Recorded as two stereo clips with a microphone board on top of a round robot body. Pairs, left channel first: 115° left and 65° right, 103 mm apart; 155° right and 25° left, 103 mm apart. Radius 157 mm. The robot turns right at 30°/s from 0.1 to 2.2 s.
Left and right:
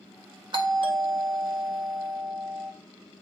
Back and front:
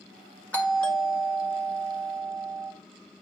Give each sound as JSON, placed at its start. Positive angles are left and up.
{"t": 0.5, "sound": "a doorbell", "azimuth_deg": -85, "distance_m": 1.9}